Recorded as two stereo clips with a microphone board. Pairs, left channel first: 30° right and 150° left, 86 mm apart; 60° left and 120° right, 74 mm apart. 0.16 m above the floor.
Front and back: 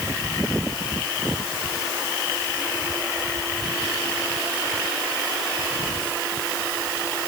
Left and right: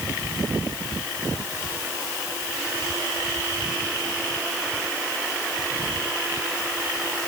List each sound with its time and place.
Only background noise.